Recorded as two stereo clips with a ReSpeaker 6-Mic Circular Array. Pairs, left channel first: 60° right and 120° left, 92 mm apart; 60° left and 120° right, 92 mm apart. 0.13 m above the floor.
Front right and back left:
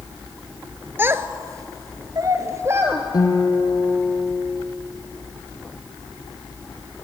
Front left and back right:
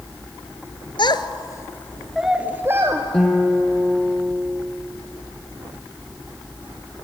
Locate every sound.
1.0 s a child speaking: 55° left, 1.2 m; by 3.0 s 175° right, 1.6 m
3.1 s a guitar: 25° right, 2.5 m